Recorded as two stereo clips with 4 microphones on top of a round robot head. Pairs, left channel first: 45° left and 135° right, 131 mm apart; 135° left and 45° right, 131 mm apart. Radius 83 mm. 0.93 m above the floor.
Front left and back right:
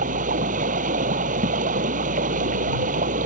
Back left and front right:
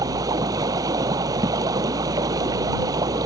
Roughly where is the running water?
Right.